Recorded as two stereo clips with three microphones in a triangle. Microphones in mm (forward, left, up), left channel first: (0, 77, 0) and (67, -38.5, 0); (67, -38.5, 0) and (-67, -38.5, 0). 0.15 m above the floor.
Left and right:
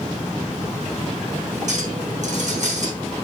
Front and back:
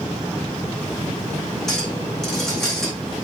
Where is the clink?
85° right, 5.5 m.